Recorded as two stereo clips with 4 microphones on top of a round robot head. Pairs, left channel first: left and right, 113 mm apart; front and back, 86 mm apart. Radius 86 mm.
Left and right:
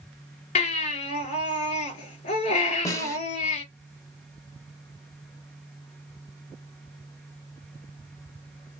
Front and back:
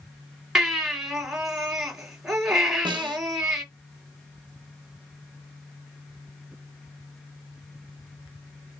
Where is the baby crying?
95° left, 3 m.